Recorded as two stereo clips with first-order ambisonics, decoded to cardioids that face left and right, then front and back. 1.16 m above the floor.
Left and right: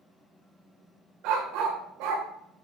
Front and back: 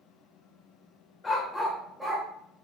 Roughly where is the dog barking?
Right.